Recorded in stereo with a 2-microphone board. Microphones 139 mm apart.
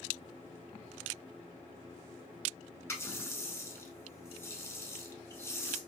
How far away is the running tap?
About 0.7 m.